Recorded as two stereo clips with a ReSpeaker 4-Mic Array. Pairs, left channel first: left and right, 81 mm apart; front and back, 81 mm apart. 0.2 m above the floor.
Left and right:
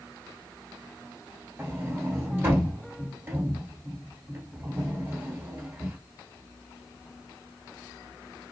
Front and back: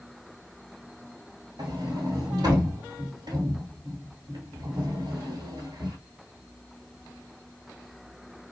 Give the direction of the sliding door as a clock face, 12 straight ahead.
5 o'clock.